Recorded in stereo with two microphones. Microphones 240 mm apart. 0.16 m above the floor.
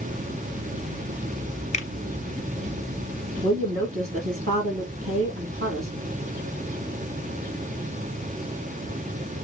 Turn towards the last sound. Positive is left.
turn(degrees=-65)  # may be behind; listen again after turning